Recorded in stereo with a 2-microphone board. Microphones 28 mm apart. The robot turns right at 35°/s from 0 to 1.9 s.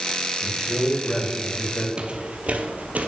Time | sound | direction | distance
0.4 | a man speaking | straight ahead | 2.5 m
2.0 | footsteps | 30° right (ahead or behind) | 0.9 m